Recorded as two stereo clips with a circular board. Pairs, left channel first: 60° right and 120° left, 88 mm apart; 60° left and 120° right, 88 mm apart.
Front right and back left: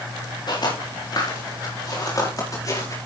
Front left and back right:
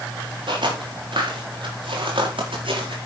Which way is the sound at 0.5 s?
95° right.